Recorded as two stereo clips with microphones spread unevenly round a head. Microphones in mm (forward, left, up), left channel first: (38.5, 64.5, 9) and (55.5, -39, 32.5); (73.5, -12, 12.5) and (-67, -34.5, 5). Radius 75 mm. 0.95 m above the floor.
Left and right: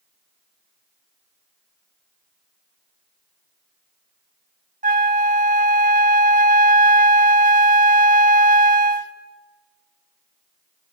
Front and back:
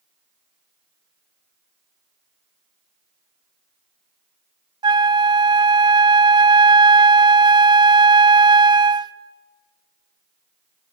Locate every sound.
4.8 s a flute: 110° right, 0.7 m